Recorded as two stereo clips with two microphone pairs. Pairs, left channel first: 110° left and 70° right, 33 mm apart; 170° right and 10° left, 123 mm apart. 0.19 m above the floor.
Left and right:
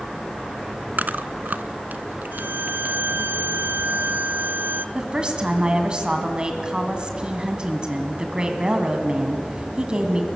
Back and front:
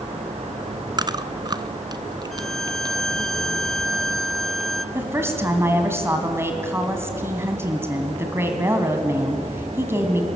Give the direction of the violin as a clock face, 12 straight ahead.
3 o'clock.